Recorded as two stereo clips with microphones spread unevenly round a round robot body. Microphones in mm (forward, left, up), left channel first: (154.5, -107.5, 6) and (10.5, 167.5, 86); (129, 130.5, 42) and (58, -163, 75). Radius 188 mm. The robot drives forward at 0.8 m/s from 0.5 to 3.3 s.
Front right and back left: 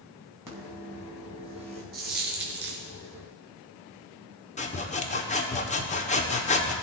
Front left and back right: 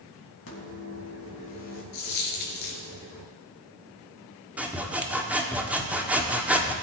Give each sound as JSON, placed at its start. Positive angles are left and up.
{"t": 0.5, "sound": "a microwave", "azimuth_deg": 35, "distance_m": 4.0}
{"t": 1.9, "sound": "a dropped coin", "azimuth_deg": 60, "distance_m": 3.0}
{"t": 4.6, "sound": "sawing", "azimuth_deg": -15, "distance_m": 1.4}